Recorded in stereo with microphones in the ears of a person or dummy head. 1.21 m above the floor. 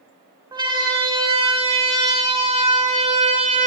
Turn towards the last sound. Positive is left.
turn(degrees=-40)  # may be behind; listen again after turning